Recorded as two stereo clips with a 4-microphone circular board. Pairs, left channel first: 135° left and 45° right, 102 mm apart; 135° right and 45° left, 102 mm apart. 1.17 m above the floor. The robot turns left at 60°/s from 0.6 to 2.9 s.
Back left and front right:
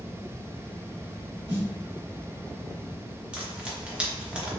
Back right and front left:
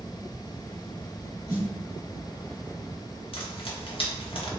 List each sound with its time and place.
1.5 s a snare drum: 15° right, 1.5 m; by 1.7 s 25° right, 1.5 m
3.3 s frying: 120° right, 1.0 m